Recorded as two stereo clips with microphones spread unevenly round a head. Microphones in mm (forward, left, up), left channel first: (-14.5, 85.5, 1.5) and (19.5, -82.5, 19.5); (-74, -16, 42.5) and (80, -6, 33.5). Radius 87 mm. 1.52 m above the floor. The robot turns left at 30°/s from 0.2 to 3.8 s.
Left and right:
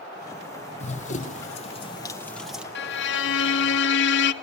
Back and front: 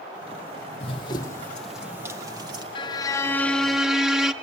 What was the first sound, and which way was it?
Running footsteps, 145° left.